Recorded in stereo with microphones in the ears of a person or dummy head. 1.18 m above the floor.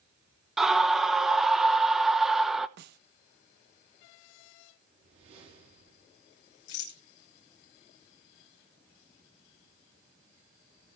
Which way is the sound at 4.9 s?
30° right (ahead or behind).